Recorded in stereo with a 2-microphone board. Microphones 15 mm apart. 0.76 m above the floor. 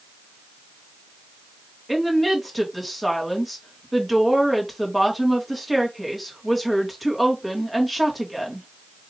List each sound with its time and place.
1.9 s a woman speaking: centre (ahead or behind), 1.4 m